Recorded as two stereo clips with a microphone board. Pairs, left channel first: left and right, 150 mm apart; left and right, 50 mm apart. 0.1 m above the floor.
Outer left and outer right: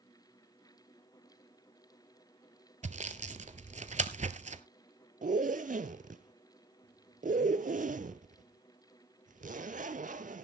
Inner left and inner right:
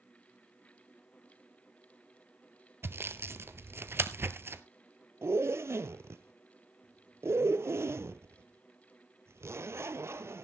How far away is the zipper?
About 0.7 m.